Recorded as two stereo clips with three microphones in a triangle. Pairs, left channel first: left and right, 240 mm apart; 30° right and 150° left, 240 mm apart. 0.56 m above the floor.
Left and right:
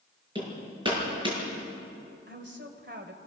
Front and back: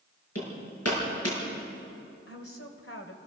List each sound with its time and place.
0.3 s hammering: 20° right, 6.5 m
2.3 s a woman speaking: 50° right, 2.5 m